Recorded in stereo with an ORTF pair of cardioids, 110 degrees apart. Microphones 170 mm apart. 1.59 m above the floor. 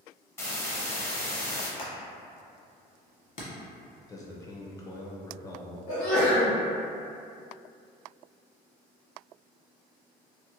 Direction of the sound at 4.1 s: 20° left.